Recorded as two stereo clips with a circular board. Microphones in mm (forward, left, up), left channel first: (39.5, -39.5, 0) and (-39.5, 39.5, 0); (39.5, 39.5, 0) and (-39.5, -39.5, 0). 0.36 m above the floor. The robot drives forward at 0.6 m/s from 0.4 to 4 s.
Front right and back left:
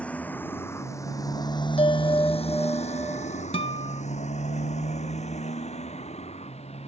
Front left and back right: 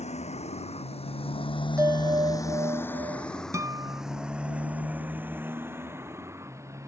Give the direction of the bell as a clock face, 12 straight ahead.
2 o'clock.